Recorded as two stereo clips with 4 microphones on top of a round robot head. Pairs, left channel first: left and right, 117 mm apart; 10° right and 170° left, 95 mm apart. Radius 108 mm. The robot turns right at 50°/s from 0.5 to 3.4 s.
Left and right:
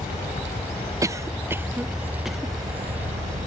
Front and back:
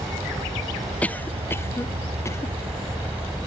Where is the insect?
115° left; by 3.5 s 100° right.